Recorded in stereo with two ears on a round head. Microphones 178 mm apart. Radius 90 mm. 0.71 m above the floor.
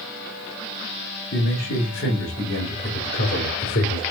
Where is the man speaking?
50° left (ahead or behind), 4 m; by 4.0 s 70° left (ahead or behind), 2.5 m.